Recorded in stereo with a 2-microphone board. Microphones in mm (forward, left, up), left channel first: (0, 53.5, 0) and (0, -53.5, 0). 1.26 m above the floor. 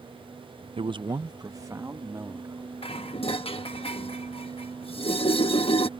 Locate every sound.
0.8 s a man speaking: 60° right (ahead or behind); by 3.8 s 25° right (ahead or behind)
2.8 s dishes clattering: 60° left (ahead or behind)